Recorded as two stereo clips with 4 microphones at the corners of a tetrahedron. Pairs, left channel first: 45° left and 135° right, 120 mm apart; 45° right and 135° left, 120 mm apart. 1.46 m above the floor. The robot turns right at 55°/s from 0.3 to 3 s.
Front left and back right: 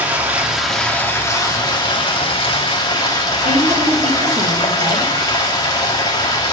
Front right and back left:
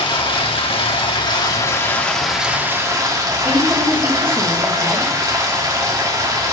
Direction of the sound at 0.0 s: 65° right.